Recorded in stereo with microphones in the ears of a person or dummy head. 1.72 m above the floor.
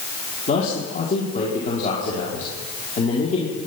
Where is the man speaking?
45° left (ahead or behind), 4.5 m.